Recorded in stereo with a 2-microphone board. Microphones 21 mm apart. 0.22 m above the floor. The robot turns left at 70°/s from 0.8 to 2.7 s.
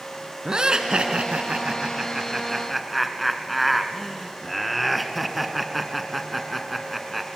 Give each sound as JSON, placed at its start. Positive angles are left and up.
{"t": 0.5, "sound": "laughter", "azimuth_deg": -45, "distance_m": 2.0}